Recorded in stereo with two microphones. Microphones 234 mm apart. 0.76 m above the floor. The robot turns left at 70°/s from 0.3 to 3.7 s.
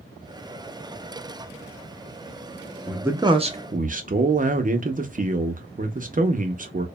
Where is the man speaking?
Straight ahead, 0.5 m; by 6.9 s 60° right, 0.5 m.